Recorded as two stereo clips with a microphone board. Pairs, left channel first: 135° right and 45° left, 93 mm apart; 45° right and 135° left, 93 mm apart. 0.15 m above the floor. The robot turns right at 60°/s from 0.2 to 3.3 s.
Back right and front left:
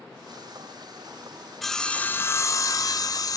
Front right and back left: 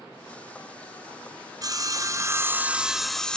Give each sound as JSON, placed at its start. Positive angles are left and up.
{"t": 1.6, "sound": "sawing", "azimuth_deg": 135, "distance_m": 1.0}